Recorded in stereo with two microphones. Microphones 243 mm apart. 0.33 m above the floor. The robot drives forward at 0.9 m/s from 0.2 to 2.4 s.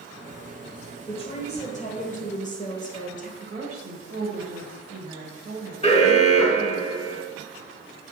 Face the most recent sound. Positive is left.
turn(degrees=25)  # may be behind; listen again after turning